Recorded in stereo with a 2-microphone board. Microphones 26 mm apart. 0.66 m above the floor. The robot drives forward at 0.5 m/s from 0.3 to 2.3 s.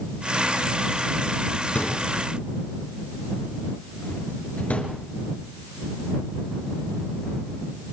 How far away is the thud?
About 4 m.